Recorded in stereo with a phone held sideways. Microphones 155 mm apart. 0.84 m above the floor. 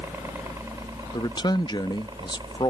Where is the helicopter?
15° right (ahead or behind); by 2.7 s 30° right (ahead or behind).